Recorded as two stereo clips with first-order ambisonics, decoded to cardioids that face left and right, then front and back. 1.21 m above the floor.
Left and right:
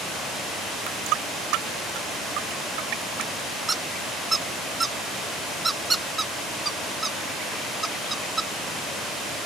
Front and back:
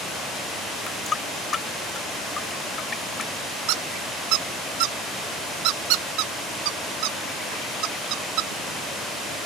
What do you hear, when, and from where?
0.9 s a running tap: 70° right
3.7 s a squeak: 170° right